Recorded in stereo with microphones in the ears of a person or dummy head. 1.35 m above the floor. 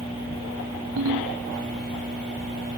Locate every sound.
1.0 s a ringtone: 75° right (ahead or behind)